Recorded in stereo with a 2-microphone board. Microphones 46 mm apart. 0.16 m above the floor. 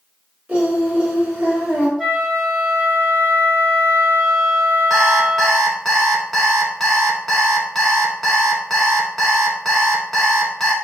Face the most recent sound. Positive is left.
turn(degrees=5)  # may be behind; listen again after turning